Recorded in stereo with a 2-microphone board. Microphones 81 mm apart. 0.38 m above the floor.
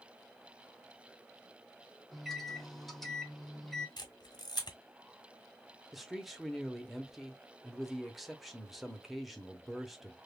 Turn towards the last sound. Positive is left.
turn(degrees=0)  # may be behind; listen again after turning